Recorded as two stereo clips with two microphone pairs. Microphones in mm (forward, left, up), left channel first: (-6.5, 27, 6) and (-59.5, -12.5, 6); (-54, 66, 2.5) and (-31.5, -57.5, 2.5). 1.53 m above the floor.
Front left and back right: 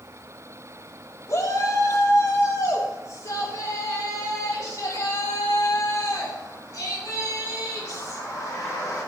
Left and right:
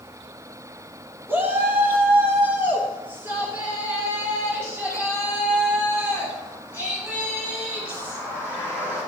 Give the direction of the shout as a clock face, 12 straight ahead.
12 o'clock.